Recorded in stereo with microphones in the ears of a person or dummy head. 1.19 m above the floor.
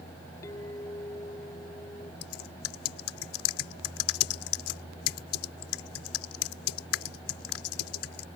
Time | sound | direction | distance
0.4 | a clink | 15° left (ahead or behind) | ?
2.2 | typing on a keyboard | 80° left | ?